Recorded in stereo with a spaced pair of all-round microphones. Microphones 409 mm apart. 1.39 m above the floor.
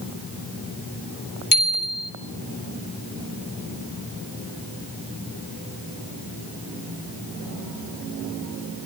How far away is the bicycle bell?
About 3 m.